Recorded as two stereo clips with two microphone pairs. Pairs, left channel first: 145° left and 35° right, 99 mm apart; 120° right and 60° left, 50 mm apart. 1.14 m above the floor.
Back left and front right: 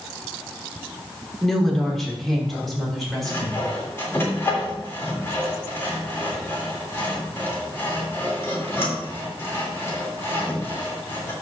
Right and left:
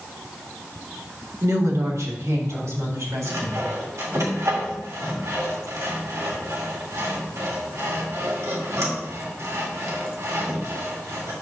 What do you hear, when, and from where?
1.4 s a woman speaking: 55° left, 1.8 m
3.2 s sawing: 75° left, 3 m